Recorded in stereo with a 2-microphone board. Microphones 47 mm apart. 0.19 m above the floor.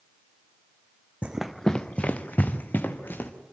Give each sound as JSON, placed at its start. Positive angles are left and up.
{"t": 1.2, "sound": "running footsteps", "side_deg": -25, "distance_m": 0.6}